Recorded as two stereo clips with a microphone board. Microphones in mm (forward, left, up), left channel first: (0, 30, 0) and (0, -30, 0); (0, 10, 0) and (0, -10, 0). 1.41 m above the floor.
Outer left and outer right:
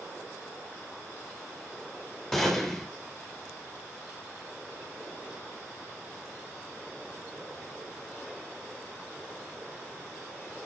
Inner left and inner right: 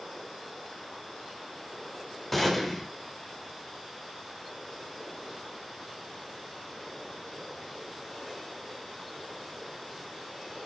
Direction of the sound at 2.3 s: 5° left (ahead or behind).